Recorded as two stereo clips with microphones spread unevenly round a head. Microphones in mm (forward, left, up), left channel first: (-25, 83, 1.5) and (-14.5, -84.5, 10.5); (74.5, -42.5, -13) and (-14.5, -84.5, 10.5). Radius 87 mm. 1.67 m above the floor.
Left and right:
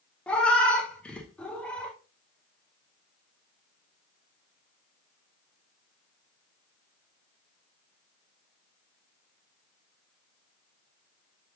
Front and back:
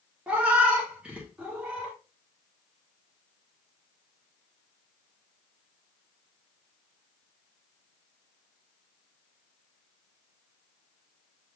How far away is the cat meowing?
About 0.9 m.